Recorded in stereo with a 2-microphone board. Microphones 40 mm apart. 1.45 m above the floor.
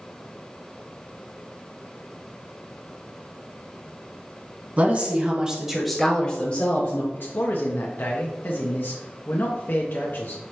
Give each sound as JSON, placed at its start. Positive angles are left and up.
{"t": 4.8, "sound": "a woman speaking", "side_deg": -40, "distance_m": 1.1}
{"t": 7.1, "sound": "a man speaking", "side_deg": 55, "distance_m": 0.7}